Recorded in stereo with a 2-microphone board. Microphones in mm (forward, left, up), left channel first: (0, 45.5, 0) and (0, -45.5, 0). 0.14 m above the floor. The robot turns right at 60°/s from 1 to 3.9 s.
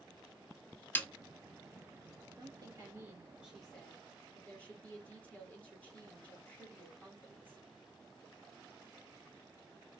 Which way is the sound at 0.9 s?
20° left (ahead or behind).